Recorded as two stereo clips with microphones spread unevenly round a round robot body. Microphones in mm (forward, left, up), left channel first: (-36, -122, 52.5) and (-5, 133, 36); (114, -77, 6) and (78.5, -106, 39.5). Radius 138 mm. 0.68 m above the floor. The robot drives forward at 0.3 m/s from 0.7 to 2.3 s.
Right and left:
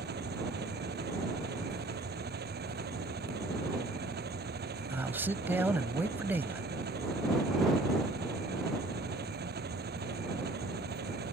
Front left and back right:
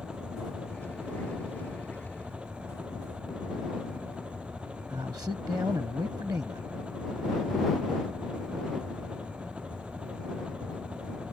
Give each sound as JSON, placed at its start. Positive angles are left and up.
{"t": 0.0, "sound": "an engine running", "azimuth_deg": 135}
{"t": 4.9, "sound": "a man speaking", "azimuth_deg": 165}